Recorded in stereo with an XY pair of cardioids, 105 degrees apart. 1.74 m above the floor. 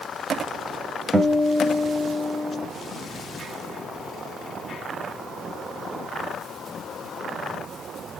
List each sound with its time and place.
1.1 s a guitar: 25° right, 0.7 m